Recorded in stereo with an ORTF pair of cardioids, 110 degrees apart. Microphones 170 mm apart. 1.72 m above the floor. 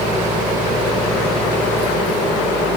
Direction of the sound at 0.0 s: 50° right.